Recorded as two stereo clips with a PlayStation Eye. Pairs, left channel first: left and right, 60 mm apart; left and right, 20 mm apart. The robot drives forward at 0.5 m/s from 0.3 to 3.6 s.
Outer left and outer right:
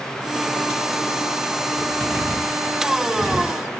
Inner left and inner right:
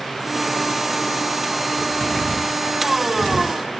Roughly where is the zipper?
Centre.